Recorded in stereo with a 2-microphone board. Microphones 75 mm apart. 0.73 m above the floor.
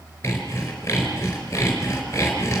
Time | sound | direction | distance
0.2 | sawing | 35° left (ahead or behind) | 4.5 m